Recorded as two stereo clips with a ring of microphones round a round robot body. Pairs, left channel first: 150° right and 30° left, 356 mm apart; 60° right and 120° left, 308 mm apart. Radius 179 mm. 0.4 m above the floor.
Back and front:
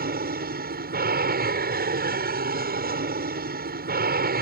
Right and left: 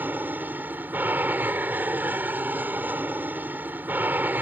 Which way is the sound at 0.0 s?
45° left.